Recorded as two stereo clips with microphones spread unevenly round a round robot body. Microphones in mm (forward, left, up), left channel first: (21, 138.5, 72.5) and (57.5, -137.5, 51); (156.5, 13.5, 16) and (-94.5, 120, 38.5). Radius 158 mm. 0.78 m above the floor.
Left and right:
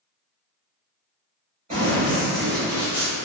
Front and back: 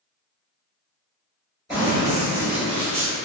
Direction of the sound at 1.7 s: 135° right.